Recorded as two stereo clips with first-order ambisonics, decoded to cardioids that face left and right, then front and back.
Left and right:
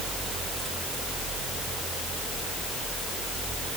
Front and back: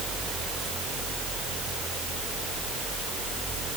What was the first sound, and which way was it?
Only background noise.